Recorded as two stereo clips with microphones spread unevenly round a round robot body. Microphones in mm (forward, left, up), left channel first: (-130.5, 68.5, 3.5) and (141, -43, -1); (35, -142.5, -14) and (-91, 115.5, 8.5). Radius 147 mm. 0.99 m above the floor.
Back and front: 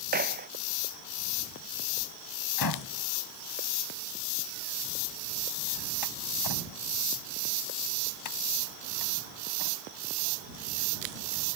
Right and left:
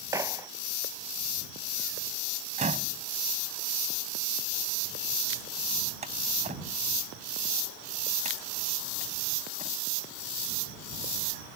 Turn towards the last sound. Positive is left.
turn(degrees=-175)